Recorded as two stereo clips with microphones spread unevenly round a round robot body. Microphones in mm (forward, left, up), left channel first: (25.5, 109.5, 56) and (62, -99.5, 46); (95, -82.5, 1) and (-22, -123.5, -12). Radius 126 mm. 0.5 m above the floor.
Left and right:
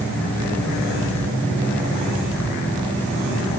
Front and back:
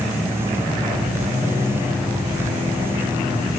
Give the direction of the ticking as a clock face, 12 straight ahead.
I don't hear ticking.